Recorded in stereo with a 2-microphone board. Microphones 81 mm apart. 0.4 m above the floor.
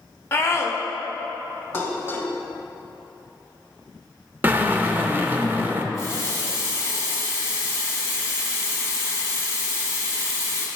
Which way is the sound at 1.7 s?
30° left (ahead or behind).